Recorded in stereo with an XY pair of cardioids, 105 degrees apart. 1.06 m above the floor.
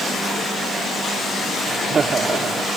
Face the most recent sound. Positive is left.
turn(degrees=-40)